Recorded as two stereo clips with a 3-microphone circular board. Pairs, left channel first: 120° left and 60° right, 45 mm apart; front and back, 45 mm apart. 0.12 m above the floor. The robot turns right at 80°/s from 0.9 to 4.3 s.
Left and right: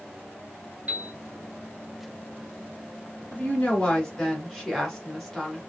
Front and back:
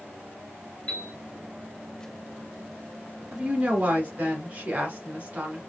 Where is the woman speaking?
130° left, 1.4 m; by 5.6 s 150° right, 1.4 m.